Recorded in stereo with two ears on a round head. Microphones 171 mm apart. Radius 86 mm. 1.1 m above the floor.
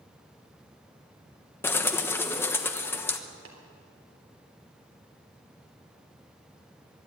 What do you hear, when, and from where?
1.6 s a bird: 10° left (ahead or behind), 1.1 m
3.5 s tapping: 75° right (ahead or behind), 3.5 m